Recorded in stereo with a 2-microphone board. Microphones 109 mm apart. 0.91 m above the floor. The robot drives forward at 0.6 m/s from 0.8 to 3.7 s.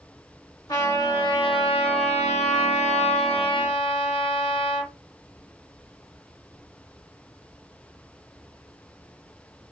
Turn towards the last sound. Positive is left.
turn(degrees=50)  # may be behind; listen again after turning